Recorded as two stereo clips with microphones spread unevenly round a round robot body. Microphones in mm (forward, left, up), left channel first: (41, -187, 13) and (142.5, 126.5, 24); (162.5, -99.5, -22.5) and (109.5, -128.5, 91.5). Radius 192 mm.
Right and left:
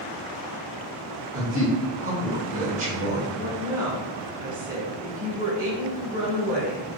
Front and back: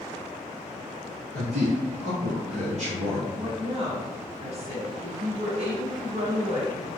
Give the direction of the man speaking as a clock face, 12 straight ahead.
8 o'clock.